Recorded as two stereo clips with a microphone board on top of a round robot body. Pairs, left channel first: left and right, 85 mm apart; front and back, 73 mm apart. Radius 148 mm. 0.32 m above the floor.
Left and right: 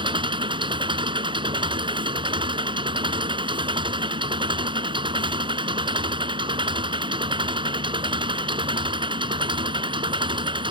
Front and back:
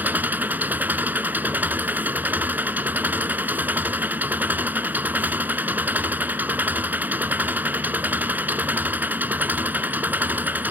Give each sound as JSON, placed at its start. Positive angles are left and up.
{"t": 0.0, "sound": "an engine running", "azimuth_deg": -115}